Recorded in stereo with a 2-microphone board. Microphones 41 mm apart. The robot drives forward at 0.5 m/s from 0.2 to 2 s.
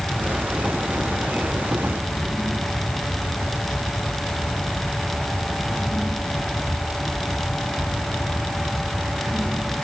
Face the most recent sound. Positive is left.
No sound to turn to.